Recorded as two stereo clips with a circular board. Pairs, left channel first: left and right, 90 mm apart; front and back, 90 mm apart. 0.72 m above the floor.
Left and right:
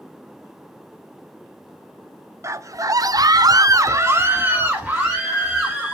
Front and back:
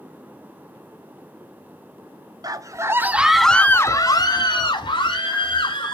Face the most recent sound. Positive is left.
turn(degrees=-5)